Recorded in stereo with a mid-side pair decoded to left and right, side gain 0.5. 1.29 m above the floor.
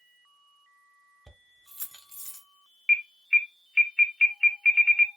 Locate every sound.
1.3 s keys jangling: 10° right, 1.1 m; by 2.5 s 25° left, 1.0 m
2.9 s an alarm: 5° left, 0.9 m